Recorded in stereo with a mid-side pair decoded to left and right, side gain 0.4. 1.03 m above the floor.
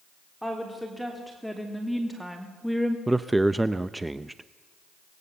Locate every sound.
0.4 s a woman speaking: straight ahead, 3.5 m
3.1 s a man speaking: 15° right, 0.6 m